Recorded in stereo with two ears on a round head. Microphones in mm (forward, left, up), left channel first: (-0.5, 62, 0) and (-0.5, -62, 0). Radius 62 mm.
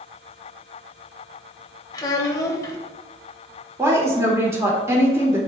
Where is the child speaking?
30° left (ahead or behind), 1.1 m.